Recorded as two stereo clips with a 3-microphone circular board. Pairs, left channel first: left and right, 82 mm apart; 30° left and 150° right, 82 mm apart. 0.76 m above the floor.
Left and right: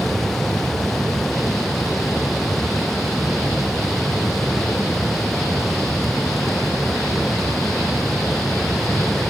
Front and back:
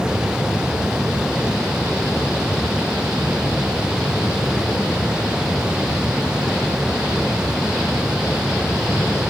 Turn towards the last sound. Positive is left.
No sound to turn to.